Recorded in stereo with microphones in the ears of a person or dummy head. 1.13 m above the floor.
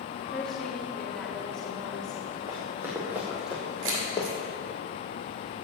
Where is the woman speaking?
5° left (ahead or behind), 1.9 m.